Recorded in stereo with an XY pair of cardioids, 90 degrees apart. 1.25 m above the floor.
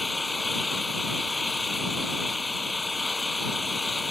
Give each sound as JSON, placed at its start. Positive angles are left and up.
{"t": 0.0, "sound": "an engine running", "azimuth_deg": 15}